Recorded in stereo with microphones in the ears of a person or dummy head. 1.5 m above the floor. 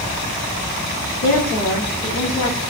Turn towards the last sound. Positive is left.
turn(degrees=50)  # may be behind; listen again after turning